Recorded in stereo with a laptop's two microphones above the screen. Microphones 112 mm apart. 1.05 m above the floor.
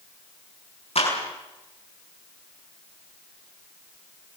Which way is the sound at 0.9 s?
70° left (ahead or behind).